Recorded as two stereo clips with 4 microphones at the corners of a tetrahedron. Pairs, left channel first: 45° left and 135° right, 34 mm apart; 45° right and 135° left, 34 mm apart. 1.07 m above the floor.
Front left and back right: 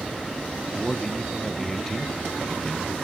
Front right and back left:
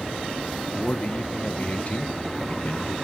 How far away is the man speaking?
About 0.8 m.